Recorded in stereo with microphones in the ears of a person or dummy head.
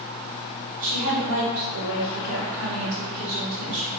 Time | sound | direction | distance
0.8 | a woman speaking | 70° right (ahead or behind) | 1.9 m